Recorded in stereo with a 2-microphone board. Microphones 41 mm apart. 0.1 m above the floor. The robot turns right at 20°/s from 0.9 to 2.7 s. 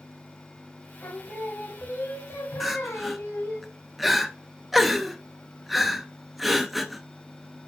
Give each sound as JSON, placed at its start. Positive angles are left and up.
{"t": 1.0, "sound": "singing", "azimuth_deg": 55, "distance_m": 3.0}
{"t": 2.6, "sound": "crying", "side_deg": 0, "distance_m": 0.7}